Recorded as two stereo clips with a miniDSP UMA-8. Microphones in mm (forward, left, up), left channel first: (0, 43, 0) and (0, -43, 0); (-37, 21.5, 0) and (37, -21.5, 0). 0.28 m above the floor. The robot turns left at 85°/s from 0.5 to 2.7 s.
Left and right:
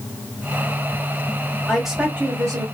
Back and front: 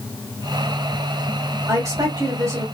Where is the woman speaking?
10° left, 1.1 m; by 2.6 s 70° right, 1.1 m.